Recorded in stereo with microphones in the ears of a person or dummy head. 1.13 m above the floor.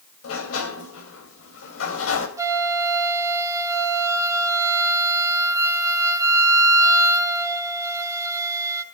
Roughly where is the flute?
Centre.